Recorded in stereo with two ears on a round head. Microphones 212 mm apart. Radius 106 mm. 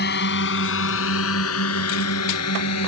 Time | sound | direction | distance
0.0 | a drone | 45° left (ahead or behind) | ?